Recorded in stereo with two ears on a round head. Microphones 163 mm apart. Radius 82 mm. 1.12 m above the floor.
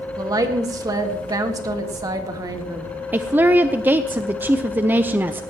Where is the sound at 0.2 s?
20° right (ahead or behind), 1.7 m.